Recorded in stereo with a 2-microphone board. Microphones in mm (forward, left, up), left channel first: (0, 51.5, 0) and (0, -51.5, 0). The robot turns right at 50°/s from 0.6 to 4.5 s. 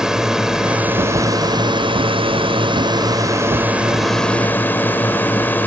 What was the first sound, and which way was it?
A drone, 175° right.